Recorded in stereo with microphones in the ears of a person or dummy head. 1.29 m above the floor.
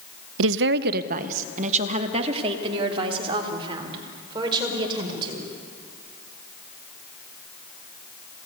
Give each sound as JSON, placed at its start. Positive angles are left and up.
{"t": 0.4, "sound": "a woman speaking", "side_deg": -75, "distance_m": 0.6}